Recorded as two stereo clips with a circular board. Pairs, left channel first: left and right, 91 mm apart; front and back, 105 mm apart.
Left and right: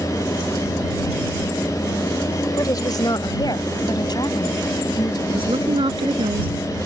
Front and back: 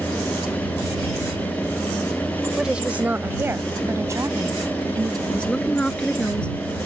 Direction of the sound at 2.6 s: 100° left.